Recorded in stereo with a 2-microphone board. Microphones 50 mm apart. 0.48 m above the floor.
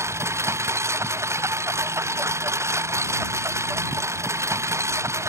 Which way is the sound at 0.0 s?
70° right (ahead or behind).